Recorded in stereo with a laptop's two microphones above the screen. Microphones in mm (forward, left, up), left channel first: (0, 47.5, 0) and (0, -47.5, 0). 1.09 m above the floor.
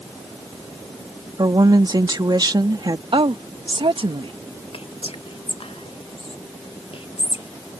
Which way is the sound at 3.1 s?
65° right (ahead or behind).